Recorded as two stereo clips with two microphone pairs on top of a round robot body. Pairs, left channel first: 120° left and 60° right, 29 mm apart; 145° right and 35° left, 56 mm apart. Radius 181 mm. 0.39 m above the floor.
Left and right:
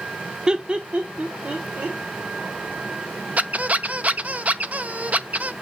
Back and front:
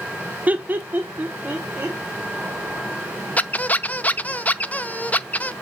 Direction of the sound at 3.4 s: 95° right.